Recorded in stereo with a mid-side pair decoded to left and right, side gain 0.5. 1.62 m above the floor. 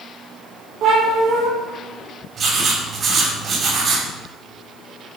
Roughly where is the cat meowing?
Ahead right.